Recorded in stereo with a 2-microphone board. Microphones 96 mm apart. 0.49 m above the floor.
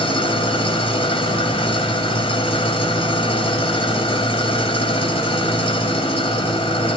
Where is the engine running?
75° left (ahead or behind), 1.5 m.